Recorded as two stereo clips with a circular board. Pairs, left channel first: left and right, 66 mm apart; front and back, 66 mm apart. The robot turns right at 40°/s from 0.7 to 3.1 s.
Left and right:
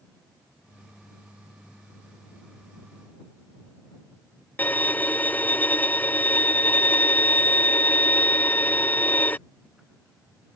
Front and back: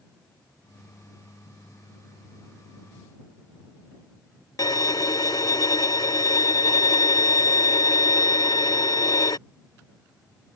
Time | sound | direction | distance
4.6 | a violin | 25° left | ?